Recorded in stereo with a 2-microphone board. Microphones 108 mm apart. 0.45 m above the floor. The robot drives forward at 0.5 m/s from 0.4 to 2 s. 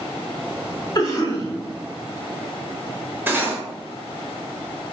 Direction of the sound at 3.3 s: 20° right (ahead or behind).